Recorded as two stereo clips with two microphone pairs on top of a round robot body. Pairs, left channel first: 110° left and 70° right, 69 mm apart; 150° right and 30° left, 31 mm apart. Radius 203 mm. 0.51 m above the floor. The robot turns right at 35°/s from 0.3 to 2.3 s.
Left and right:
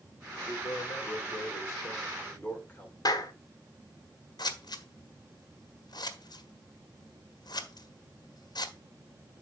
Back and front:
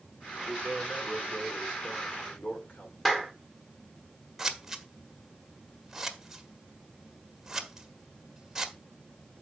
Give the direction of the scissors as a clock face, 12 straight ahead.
8 o'clock.